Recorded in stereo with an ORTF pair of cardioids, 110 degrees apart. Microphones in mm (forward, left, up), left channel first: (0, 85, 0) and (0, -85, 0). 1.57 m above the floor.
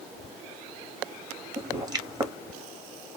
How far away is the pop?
About 1.0 m.